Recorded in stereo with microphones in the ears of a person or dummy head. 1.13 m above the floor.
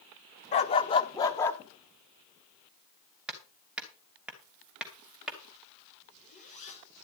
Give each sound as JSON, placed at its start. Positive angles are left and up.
{"t": 0.5, "sound": "a dog barking", "side_deg": 40, "distance_m": 0.8}
{"t": 3.3, "sound": "hammering", "side_deg": -5, "distance_m": 2.5}
{"t": 6.0, "sound": "a zipper", "side_deg": 35, "distance_m": 5.0}